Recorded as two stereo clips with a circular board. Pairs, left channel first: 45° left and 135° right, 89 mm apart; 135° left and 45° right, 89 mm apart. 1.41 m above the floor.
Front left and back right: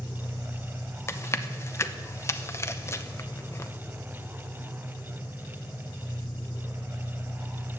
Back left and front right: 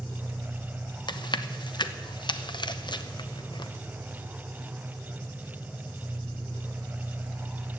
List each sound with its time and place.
0.0 s an engine running: 45° left, 4 m
1.1 s chewing: 105° left, 0.7 m